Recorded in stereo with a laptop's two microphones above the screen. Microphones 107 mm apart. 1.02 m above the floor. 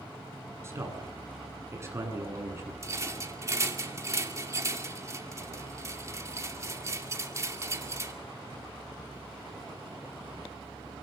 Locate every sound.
0.6 s a man speaking: 25° right (ahead or behind), 9 m
2.8 s a rattle: 30° right (ahead or behind), 2 m